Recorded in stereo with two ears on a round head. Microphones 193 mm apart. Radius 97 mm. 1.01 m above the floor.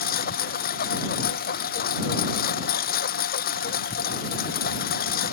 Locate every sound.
0.0 s a lawn mower: 45° left (ahead or behind)